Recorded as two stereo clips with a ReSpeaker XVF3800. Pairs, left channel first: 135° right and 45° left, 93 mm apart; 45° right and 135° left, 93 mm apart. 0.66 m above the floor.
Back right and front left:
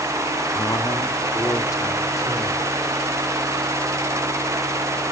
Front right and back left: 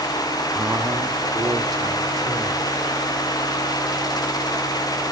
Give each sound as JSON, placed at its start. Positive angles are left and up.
{"t": 0.5, "sound": "a man speaking", "azimuth_deg": -155, "distance_m": 0.7}